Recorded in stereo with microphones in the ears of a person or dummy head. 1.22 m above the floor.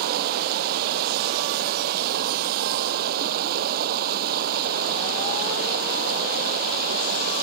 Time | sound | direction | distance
0.0 | running water | 50° right (ahead or behind) | ?